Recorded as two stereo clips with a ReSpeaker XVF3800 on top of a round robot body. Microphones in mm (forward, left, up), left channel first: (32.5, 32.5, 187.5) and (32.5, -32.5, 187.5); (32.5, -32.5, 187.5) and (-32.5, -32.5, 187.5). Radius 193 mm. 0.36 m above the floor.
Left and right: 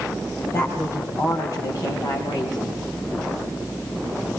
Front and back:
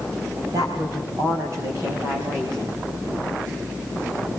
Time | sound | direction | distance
0.5 | a woman speaking | 145° left | 3.5 m